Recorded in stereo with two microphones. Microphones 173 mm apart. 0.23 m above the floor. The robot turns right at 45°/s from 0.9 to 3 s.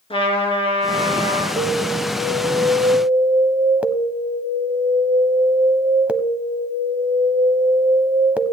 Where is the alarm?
30° right (ahead or behind), 0.7 m; by 8.5 s 10° right (ahead or behind), 0.7 m.